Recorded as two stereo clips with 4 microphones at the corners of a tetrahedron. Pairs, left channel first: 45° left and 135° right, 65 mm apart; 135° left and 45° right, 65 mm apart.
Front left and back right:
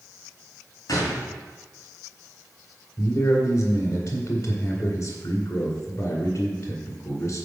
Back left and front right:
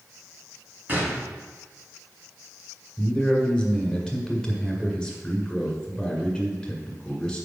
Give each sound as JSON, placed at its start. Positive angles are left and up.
{"t": 0.9, "sound": "a gunshot", "azimuth_deg": 20, "distance_m": 2.0}
{"t": 3.0, "sound": "a man speaking", "azimuth_deg": 60, "distance_m": 1.9}